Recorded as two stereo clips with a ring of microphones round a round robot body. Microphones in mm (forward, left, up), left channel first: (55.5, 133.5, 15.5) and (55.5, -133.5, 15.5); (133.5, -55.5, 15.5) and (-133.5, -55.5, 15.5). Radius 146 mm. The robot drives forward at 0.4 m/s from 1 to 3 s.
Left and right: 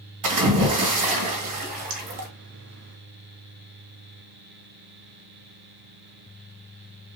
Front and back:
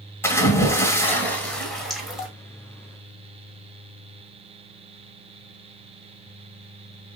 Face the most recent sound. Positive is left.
turn(degrees=-100)